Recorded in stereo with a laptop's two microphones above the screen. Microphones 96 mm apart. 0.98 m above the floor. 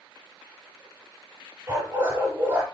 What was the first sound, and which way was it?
A dog barking, 25° right (ahead or behind).